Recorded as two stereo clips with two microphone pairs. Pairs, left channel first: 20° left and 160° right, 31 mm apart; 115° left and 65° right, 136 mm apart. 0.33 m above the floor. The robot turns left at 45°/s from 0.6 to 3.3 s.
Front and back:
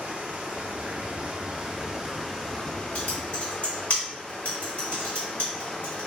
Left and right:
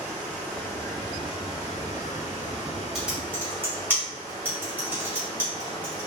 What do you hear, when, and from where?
0.0 s running water: 175° right, 0.9 m; by 6.1 s 65° left, 0.9 m
3.0 s typing on a keyboard: 20° left, 1.5 m; by 6.1 s 5° left, 1.5 m